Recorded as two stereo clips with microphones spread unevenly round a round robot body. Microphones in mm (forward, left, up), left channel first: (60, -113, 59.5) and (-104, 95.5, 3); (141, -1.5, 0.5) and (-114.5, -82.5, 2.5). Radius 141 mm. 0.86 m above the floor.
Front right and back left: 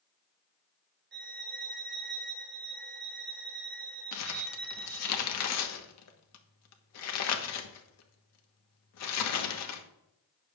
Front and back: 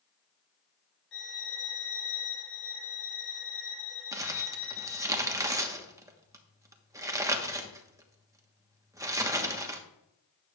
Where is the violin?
70° left, 1.4 m.